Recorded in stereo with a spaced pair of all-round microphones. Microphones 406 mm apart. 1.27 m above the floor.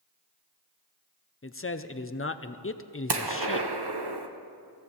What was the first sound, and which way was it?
A man speaking, 30° left (ahead or behind).